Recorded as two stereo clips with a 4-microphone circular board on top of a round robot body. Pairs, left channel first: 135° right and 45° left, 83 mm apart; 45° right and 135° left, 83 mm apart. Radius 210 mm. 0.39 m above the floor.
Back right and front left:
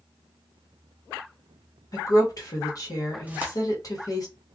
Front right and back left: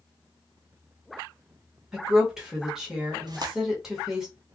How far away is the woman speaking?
About 1.4 m.